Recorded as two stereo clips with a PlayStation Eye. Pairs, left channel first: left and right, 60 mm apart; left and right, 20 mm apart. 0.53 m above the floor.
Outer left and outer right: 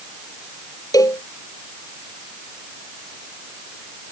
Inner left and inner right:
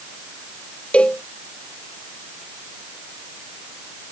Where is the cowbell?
75° left (ahead or behind).